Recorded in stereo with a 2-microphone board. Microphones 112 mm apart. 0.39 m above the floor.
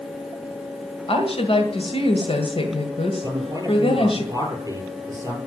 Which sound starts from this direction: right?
A man speaking, at 3.2 s.